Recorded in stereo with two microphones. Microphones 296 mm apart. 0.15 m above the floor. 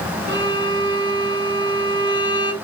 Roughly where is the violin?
Right.